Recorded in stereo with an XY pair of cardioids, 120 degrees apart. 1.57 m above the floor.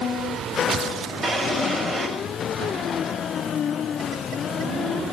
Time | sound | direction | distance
1.2 | a drawer | 30° right | 5 m